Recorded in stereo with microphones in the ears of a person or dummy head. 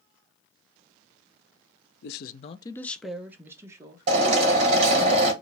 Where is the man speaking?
60° left (ahead or behind), 0.6 m; by 5.1 s 35° right (ahead or behind), 2.0 m.